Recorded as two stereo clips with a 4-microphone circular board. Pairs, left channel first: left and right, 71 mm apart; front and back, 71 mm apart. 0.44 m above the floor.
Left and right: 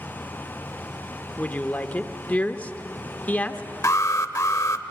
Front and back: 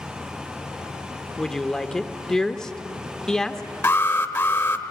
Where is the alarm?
50° left, 1.0 m.